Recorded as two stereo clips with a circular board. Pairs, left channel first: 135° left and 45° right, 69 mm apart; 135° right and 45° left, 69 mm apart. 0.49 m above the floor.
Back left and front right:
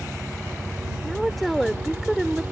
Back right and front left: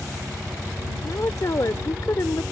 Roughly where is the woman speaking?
Behind right.